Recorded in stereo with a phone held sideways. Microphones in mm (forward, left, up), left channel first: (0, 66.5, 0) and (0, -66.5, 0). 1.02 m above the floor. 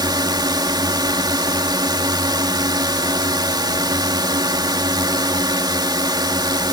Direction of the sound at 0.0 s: 30° right (ahead or behind).